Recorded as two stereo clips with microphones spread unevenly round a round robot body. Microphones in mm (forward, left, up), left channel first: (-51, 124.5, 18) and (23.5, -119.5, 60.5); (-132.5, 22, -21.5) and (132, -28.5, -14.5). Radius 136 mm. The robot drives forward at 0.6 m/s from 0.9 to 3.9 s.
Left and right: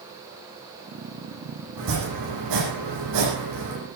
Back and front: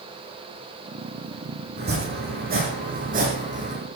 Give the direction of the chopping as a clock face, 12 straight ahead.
2 o'clock.